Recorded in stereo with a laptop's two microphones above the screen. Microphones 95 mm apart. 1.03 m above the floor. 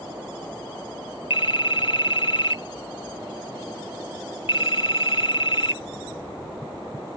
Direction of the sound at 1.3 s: 70° left (ahead or behind).